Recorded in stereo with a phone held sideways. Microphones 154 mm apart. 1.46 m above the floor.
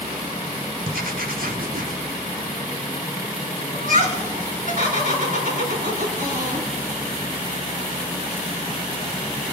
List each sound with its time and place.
0.8 s writing: 75° right (ahead or behind), 0.8 m
3.7 s laughter: 65° right (ahead or behind), 5 m